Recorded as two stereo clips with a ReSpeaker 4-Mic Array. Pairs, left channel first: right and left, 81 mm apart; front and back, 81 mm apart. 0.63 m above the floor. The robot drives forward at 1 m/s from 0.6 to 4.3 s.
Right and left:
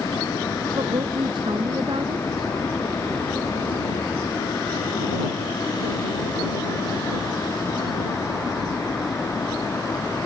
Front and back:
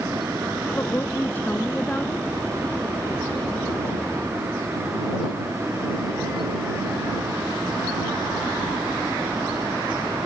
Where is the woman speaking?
65° left; by 2.3 s 75° left.